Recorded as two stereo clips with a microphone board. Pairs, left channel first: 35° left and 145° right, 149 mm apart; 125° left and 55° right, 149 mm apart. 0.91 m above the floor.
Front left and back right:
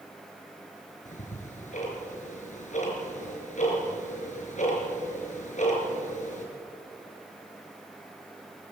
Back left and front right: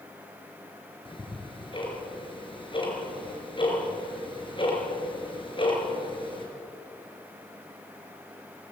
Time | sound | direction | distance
1.1 | ticking | 70° left | 5 m